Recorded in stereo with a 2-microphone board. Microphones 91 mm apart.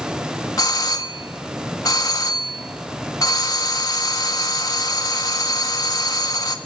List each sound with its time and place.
0.6 s a doorbell: 45° left (ahead or behind), 1.7 m